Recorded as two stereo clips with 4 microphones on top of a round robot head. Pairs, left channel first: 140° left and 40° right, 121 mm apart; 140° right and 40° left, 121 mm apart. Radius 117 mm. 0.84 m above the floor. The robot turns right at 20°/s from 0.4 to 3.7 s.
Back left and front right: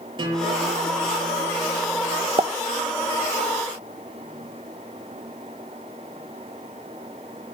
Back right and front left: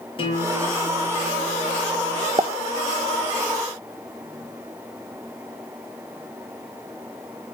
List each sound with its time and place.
0.2 s a guitar: 90° right, 7 m; by 2.3 s 55° right, 7 m
2.4 s a pop: 5° right, 0.9 m; by 2.5 s straight ahead, 0.9 m